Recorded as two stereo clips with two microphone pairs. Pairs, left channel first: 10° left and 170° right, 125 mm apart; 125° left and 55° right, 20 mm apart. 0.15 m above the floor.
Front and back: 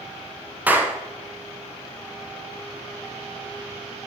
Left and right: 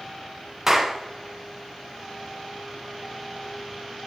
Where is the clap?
100° right, 1.1 m.